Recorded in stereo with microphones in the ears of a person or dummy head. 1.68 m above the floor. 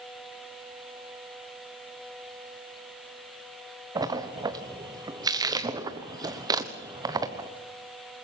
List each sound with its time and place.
4.0 s a splash: 20° right (ahead or behind), 1.2 m